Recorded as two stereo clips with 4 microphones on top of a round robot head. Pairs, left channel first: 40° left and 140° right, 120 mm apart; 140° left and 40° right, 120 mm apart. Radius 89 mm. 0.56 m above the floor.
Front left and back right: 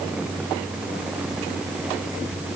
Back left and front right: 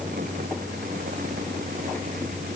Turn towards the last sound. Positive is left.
No sound to turn to.